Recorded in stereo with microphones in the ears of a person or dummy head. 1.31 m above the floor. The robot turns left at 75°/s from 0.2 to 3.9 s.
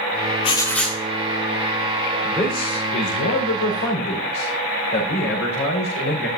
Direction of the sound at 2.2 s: Straight behind.